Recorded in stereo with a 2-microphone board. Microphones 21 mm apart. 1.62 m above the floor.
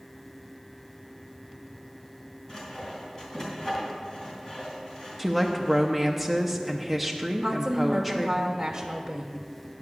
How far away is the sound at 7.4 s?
About 0.9 m.